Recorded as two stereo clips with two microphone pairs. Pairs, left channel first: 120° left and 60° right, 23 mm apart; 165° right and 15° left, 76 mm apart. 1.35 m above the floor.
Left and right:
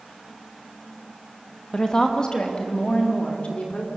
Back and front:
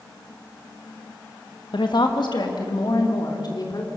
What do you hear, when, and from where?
1.7 s a woman speaking: straight behind, 1.9 m; by 3.9 s 160° left, 4 m